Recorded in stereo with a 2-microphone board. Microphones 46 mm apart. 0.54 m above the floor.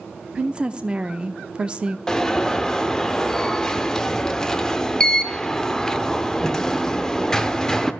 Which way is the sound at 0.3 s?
25° right (ahead or behind).